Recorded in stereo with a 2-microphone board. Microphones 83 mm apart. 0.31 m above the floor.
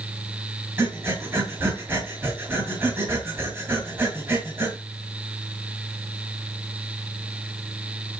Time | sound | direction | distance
0.8 | breathing | 30° right (ahead or behind) | 2.5 m